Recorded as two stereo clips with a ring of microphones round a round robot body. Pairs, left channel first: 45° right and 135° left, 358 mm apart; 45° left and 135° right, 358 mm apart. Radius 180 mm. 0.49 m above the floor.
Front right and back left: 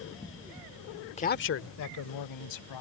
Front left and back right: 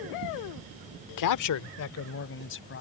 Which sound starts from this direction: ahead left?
A man speaking, at 1.2 s.